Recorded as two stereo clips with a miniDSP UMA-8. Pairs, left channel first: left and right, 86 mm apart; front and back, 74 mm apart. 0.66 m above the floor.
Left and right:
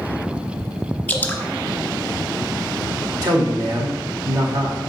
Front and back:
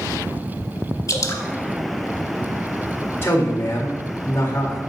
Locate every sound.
1.1 s dripping: 20° left, 0.9 m
3.2 s a man speaking: 55° right, 1.8 m